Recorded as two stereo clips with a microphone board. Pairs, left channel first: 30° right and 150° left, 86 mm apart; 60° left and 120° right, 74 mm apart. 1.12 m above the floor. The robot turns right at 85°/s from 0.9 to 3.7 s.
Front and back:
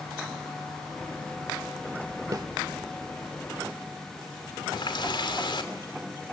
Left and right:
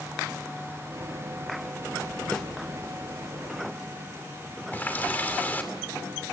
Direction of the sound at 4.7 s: 5° right.